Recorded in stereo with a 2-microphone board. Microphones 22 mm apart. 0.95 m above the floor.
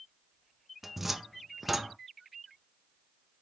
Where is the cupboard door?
10° right (ahead or behind), 0.5 m.